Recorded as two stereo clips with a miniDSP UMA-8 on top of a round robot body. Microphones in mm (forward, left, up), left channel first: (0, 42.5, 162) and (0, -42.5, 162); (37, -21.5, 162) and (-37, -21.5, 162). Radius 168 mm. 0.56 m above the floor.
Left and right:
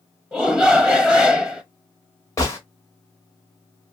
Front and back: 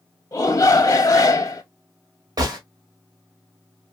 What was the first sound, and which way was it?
A shout, 5° right.